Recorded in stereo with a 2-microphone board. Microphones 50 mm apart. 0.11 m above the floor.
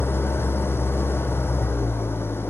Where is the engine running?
55° left (ahead or behind), 1.3 m.